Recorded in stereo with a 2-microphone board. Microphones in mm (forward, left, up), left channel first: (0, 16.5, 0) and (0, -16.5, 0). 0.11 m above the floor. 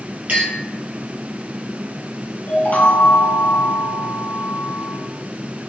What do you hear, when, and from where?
0.3 s a clink: 50° right (ahead or behind), 2.0 m
2.5 s a chime: 55° left (ahead or behind), 0.6 m